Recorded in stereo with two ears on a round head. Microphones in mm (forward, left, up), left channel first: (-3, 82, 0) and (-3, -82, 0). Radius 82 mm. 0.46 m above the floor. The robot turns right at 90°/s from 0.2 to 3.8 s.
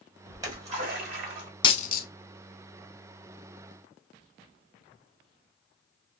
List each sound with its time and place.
0.3 s a splash: 170° right, 1.6 m; by 1.5 s 60° right, 1.6 m
1.6 s a dropped coin: 25° left (ahead or behind), 0.6 m; by 2.1 s 55° left (ahead or behind), 0.6 m